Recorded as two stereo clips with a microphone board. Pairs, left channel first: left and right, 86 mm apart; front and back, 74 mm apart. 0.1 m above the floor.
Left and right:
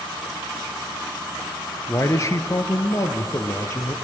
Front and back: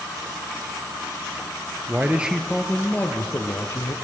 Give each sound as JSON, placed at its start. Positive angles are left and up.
{"t": 1.9, "sound": "a man speaking", "azimuth_deg": 130, "distance_m": 1.5}